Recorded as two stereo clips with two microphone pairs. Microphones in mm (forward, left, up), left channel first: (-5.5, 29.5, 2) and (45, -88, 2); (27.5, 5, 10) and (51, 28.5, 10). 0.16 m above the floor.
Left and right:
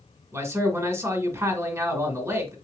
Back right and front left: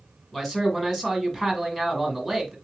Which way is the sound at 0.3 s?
65° right.